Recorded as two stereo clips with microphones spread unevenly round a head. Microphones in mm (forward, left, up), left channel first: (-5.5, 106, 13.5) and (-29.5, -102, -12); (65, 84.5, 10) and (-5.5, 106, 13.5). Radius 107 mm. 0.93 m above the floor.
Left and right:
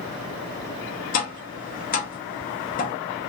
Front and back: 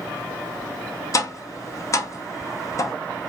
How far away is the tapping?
About 0.7 m.